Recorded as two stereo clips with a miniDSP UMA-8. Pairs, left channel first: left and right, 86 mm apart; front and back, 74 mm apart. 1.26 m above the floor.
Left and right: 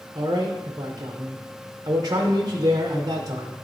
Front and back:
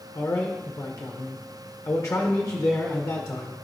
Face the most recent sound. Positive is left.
turn(degrees=-45)